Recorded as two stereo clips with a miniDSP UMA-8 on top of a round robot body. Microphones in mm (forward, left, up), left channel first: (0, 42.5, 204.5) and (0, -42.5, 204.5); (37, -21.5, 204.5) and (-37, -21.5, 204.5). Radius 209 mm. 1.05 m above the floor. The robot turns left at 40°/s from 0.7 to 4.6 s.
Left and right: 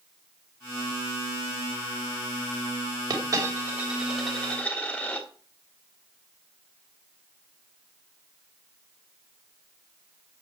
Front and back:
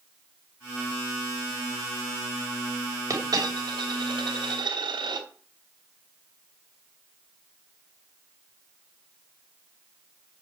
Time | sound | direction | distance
3.1 | a dropped coin | 135° right | 3 m